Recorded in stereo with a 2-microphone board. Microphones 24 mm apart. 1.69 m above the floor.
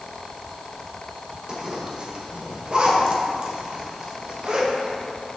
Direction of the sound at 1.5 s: 40° right (ahead or behind).